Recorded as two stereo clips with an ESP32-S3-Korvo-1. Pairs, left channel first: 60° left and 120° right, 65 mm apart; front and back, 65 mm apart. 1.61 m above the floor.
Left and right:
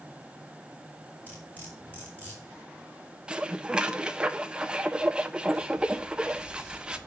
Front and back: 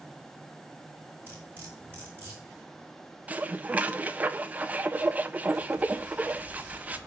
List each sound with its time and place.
1.3 s cutlery clinking: 120° left, 4.5 m
3.3 s dishes clattering: 175° right, 0.6 m